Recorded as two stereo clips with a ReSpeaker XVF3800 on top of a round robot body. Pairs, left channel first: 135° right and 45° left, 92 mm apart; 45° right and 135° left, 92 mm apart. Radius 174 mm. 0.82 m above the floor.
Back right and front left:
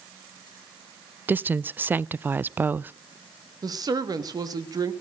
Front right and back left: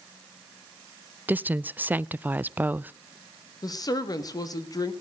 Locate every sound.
1.3 s a woman speaking: 90° left, 0.5 m
3.6 s a woman speaking: straight ahead, 1.7 m